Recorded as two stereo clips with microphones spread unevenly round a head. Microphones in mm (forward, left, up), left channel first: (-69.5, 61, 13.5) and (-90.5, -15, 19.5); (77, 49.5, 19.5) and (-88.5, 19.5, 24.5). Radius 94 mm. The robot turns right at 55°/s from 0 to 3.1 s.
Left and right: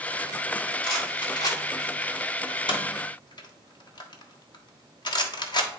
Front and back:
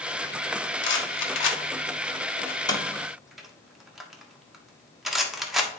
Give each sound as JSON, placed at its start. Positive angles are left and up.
{"t": 0.8, "sound": "a rattle", "azimuth_deg": -25, "distance_m": 1.2}